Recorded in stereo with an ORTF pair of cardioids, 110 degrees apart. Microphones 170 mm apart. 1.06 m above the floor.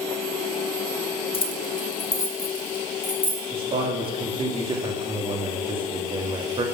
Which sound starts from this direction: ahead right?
A man speaking, at 3.5 s.